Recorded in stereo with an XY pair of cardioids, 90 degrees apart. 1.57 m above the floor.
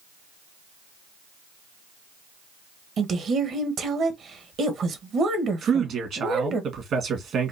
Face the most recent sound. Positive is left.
turn(degrees=-65)